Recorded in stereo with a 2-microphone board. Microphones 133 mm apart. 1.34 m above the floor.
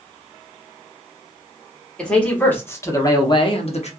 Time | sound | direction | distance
2.0 | a man speaking | 5° left (ahead or behind) | 1.5 m